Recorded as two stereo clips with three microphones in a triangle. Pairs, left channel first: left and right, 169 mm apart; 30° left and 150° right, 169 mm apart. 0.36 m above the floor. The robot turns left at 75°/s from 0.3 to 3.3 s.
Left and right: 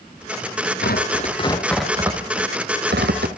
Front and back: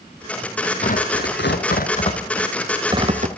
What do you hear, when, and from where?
0.8 s tearing paper: 75° left, 2 m; by 3.3 s 110° right, 2 m